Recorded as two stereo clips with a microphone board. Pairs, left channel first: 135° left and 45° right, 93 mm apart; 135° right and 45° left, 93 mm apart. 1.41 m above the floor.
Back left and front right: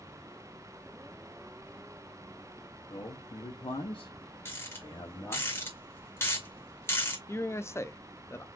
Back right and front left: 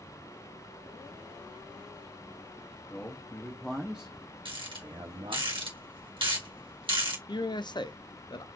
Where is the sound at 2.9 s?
160° left, 1.0 m; by 5.5 s 70° left, 1.0 m.